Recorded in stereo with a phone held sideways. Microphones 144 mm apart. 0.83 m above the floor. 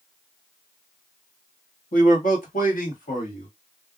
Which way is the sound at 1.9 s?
70° left (ahead or behind).